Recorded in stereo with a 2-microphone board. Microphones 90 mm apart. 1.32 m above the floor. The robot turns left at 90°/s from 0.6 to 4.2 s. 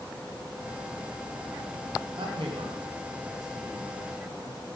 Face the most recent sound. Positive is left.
turn(degrees=60)  # may be behind; listen again after turning